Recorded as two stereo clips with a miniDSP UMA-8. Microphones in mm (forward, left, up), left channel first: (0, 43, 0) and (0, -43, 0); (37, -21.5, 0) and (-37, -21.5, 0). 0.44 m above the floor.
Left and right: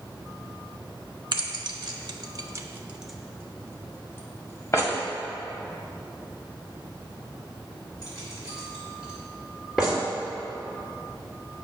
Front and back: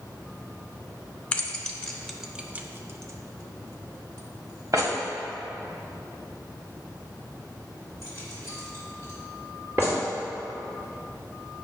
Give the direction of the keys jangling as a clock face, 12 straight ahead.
2 o'clock.